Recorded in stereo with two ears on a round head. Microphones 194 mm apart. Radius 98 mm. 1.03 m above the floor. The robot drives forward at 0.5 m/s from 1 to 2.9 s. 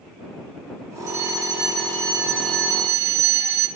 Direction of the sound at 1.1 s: 50° right (ahead or behind).